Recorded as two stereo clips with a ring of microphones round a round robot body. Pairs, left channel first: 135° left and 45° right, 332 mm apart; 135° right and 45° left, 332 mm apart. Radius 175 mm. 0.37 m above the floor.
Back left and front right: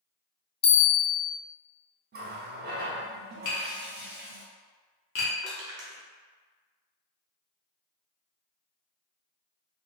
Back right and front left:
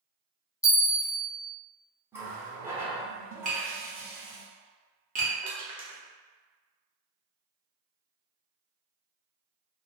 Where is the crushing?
25° right, 0.9 m.